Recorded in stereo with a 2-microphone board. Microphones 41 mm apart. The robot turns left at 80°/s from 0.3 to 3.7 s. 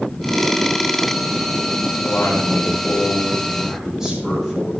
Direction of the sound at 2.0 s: 115° left.